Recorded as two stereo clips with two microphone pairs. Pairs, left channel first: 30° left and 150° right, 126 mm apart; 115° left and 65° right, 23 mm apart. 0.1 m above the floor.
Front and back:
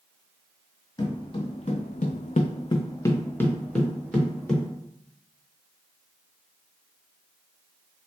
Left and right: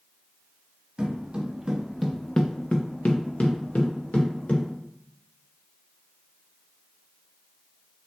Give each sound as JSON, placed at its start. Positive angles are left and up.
{"t": 1.0, "sound": "footsteps", "azimuth_deg": -20, "distance_m": 1.0}